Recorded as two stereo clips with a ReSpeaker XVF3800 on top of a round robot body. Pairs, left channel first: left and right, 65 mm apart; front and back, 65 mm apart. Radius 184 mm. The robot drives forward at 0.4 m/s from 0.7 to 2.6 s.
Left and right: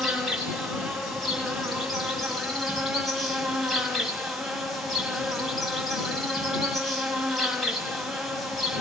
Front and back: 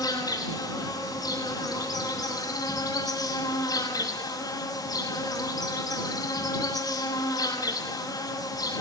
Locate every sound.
0.0 s an insect: straight ahead, 7 m